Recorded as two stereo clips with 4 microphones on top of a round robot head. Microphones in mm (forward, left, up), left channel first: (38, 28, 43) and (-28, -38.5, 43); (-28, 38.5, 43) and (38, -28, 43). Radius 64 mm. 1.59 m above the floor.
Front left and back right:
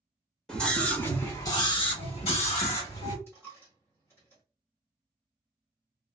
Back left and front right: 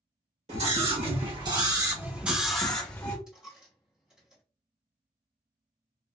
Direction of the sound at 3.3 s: 25° left.